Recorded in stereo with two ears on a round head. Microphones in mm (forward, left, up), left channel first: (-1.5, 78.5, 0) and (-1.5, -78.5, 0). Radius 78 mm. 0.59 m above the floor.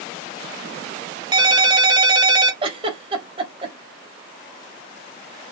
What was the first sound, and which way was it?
A ringtone, 25° right (ahead or behind).